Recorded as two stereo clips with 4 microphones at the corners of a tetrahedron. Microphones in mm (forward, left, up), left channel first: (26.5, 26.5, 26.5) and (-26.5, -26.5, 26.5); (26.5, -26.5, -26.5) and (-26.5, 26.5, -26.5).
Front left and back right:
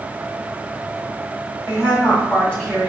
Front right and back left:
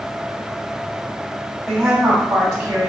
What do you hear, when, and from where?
1.7 s a woman speaking: 40° left, 1.5 m; by 2.9 s 110° left, 1.4 m